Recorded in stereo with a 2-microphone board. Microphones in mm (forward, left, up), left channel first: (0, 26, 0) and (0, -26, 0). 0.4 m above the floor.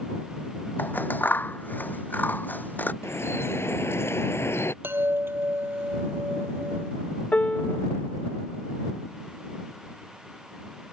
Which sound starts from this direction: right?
A chime, at 4.8 s.